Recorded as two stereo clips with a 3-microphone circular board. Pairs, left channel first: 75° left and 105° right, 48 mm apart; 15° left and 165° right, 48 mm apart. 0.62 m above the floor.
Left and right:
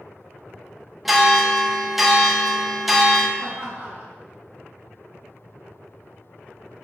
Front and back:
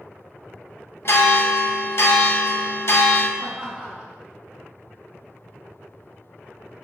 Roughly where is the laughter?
Right.